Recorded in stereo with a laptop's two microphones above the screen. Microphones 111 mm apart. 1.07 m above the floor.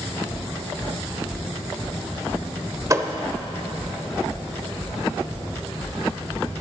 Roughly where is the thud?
Right.